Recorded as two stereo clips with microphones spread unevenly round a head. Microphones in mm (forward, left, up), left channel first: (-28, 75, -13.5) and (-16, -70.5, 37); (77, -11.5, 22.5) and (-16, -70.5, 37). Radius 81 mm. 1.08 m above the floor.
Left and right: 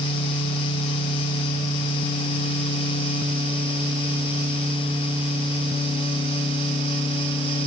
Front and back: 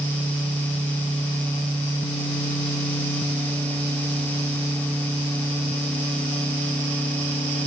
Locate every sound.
Only background noise.